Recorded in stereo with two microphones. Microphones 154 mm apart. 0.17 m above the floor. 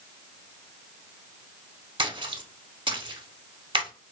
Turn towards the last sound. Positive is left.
turn(degrees=-35)  # may be behind; listen again after turning